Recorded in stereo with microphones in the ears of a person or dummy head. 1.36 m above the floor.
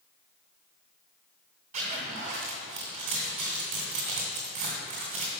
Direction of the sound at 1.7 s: 35° right (ahead or behind).